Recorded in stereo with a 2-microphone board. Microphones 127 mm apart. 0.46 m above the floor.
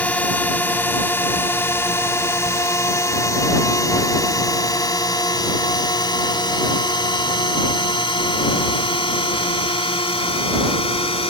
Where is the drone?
10° left (ahead or behind); by 11.3 s 50° left (ahead or behind).